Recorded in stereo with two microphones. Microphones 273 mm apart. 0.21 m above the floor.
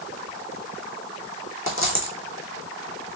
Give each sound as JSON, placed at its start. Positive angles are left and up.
{"t": 1.7, "sound": "a dropped coin", "side_deg": 50, "distance_m": 2.0}